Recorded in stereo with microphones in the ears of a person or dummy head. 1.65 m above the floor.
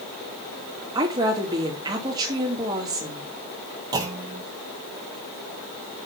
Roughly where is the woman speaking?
Right.